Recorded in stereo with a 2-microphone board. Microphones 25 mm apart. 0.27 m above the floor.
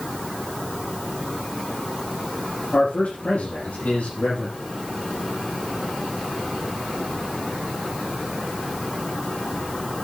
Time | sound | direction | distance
2.7 | a man speaking | 80° left | 5.5 m